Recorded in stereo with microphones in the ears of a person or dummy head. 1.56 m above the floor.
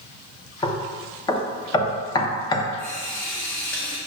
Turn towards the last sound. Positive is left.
turn(degrees=10)  # may be behind; listen again after turning